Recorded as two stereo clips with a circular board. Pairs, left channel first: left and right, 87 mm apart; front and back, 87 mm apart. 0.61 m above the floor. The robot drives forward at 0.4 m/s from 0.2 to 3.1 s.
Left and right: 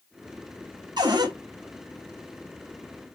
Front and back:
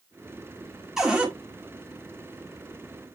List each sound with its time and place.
1.0 s a cupboard door: 95° right, 1.6 m; by 1.3 s 105° right, 1.7 m